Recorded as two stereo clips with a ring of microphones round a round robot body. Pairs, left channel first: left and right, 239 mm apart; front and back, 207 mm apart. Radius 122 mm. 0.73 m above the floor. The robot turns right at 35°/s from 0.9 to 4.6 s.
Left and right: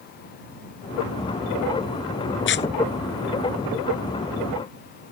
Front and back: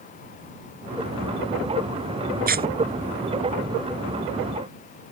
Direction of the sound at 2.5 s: 135° left.